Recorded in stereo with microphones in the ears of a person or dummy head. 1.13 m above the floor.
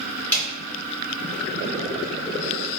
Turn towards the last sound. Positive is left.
turn(degrees=5)  # may be behind; listen again after turning